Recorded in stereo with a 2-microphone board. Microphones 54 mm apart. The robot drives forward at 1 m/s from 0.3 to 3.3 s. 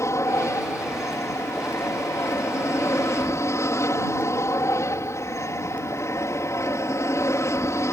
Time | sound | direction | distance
0.0 | an aircraft | 60° left (ahead or behind) | ?